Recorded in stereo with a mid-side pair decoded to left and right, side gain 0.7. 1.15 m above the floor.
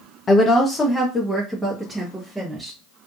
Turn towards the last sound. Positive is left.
turn(degrees=-10)